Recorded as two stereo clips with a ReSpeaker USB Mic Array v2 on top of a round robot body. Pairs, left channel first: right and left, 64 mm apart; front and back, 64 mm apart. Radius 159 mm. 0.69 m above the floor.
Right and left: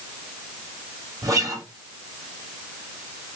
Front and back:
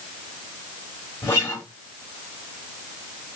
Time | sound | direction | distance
1.2 | a guitar | 45° left | 2 m